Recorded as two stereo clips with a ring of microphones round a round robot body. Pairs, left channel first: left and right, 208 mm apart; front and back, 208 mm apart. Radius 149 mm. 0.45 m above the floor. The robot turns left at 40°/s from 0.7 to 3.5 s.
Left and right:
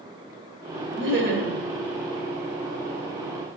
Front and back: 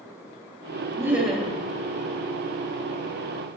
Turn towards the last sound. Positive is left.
turn(degrees=160)